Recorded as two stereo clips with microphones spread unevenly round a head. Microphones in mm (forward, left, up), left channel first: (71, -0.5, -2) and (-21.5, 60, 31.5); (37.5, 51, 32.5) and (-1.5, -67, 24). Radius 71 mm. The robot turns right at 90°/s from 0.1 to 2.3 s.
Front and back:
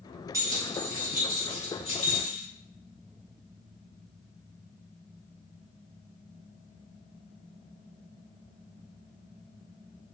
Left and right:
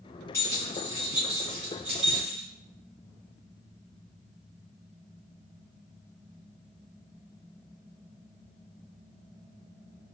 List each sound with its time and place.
0.3 s keys jangling: 130° left, 1.0 m; by 2.4 s 55° right, 1.0 m